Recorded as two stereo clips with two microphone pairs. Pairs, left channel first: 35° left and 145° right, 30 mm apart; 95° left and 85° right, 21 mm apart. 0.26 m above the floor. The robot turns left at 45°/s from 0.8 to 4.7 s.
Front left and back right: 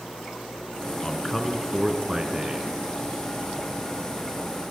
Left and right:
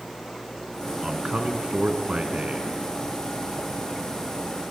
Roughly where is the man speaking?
Ahead right.